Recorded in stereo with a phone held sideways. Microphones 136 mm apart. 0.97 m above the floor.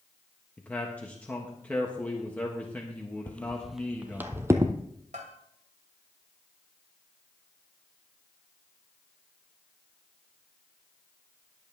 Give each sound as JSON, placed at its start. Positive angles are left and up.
{"t": 0.6, "sound": "a man speaking", "side_deg": 10, "distance_m": 1.4}
{"t": 3.3, "sound": "footsteps", "side_deg": 15, "distance_m": 1.0}
{"t": 5.1, "sound": "a bell", "side_deg": -75, "distance_m": 2.5}